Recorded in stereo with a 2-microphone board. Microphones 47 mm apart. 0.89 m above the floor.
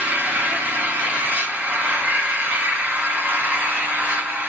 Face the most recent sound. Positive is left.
turn(degrees=-40)  # may be behind; listen again after turning